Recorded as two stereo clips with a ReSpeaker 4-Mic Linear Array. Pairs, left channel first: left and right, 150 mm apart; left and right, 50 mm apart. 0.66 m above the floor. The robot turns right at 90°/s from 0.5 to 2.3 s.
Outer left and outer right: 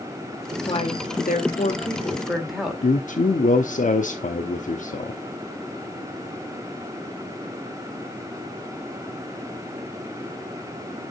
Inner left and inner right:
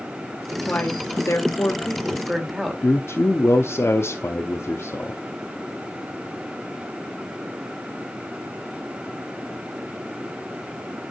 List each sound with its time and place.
0.7 s a woman speaking: 35° left, 2.5 m; by 2.9 s straight behind, 2.5 m
2.8 s a man speaking: 55° left (ahead or behind), 1.0 m